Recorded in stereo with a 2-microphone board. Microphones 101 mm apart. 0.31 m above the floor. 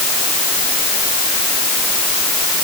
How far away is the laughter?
I don't hear laughter.